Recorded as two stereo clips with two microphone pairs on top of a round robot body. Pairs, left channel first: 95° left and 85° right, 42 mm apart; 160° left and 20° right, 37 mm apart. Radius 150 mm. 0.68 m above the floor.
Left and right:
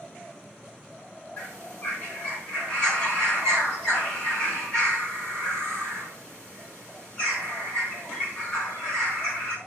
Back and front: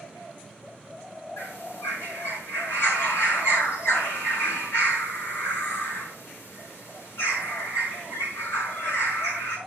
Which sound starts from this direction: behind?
A bird, at 1.4 s.